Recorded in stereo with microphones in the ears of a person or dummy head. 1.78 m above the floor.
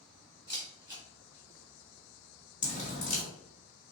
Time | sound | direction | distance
0.5 | a camera shutter | 15° right (ahead or behind) | 1.1 m
2.6 | dripping | 40° left (ahead or behind) | 1.6 m